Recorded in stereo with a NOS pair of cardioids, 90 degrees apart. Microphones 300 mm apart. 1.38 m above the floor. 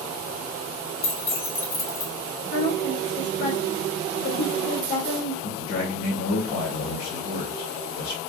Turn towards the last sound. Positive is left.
turn(degrees=70)